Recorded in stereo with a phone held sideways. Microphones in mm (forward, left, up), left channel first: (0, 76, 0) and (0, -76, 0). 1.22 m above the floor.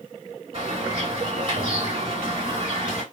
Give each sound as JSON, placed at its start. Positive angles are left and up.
{"t": 0.5, "sound": "a bird", "side_deg": -40, "distance_m": 1.3}